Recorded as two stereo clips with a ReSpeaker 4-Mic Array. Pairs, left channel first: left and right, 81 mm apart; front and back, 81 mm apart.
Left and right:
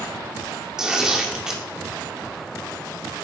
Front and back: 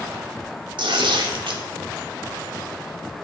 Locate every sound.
0.8 s tearing paper: 170° right, 2 m